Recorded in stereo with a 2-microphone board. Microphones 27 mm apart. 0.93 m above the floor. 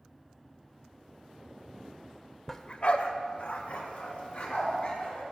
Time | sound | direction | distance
2.5 | a dog barking | 15° left (ahead or behind) | 0.8 m